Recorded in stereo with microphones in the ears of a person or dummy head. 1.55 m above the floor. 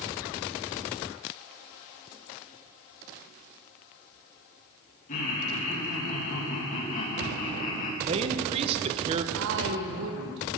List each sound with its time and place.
5.1 s laughter: 45° left (ahead or behind), 2.5 m
8.0 s a man speaking: 35° right (ahead or behind), 1.1 m
9.3 s a woman speaking: 70° right (ahead or behind), 1.6 m